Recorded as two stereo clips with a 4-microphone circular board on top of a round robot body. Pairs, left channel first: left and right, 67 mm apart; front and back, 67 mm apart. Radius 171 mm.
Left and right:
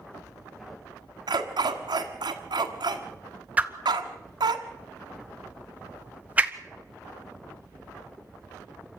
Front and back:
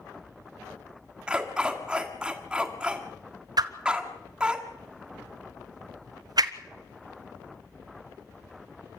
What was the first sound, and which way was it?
A dog barking, 105° right.